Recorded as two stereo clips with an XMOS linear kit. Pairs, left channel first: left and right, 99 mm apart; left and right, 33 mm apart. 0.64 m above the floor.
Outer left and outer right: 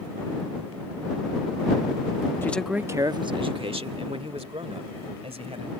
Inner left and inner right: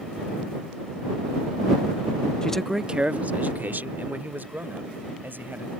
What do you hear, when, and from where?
2.4 s a man speaking: 20° left (ahead or behind); by 5.7 s 80° right